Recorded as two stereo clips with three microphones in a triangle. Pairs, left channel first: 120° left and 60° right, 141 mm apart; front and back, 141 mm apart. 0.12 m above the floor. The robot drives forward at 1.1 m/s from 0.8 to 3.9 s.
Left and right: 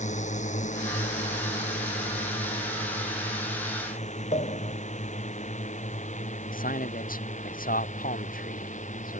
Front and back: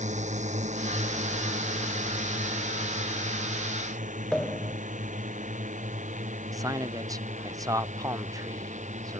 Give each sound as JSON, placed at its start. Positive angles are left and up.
{"t": 0.0, "sound": "a drone", "azimuth_deg": 150}
{"t": 4.3, "sound": "a pop", "azimuth_deg": 85}
{"t": 6.5, "sound": "a man speaking", "azimuth_deg": 115}